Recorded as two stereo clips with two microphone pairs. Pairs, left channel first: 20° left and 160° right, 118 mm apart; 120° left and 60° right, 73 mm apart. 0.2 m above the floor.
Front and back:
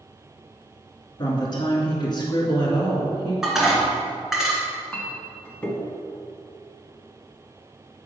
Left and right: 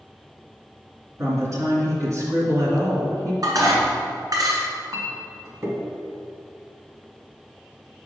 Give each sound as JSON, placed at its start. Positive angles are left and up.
{"t": 1.2, "sound": "a woman speaking", "azimuth_deg": -20, "distance_m": 2.5}
{"t": 3.4, "sound": "dishes clattering", "azimuth_deg": -75, "distance_m": 1.7}
{"t": 4.9, "sound": "a clink", "azimuth_deg": -50, "distance_m": 1.1}